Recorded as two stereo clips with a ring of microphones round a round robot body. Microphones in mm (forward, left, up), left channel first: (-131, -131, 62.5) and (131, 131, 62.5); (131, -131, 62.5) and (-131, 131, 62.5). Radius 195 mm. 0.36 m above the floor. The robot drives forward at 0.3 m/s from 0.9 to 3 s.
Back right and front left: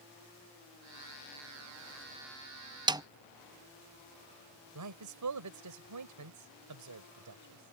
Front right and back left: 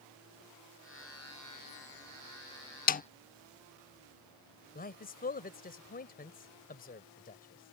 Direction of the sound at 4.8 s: 15° left.